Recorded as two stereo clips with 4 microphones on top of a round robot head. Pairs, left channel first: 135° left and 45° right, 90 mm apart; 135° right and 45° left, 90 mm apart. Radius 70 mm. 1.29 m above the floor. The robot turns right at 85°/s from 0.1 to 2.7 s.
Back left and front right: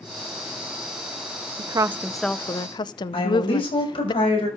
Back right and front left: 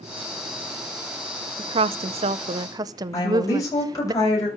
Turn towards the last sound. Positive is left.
turn(degrees=170)